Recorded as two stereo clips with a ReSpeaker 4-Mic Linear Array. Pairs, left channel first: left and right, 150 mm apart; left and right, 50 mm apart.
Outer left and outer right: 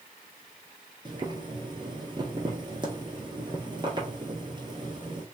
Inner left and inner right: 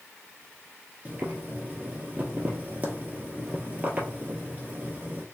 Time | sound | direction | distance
1.1 | boiling | 30° right (ahead or behind) | 1.3 m